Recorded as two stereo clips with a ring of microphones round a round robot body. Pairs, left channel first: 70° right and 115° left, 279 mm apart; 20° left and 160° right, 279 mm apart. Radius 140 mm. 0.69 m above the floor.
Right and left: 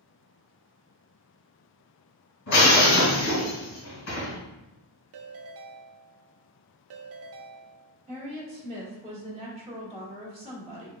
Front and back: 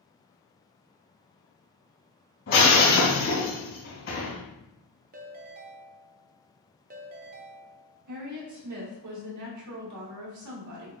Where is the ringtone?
145° left, 0.5 m.